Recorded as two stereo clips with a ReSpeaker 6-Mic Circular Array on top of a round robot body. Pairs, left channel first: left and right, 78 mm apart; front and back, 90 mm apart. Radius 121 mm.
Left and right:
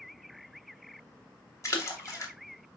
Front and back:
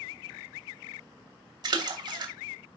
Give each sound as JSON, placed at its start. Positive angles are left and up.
{"t": 1.6, "sound": "a splash", "azimuth_deg": 140, "distance_m": 2.5}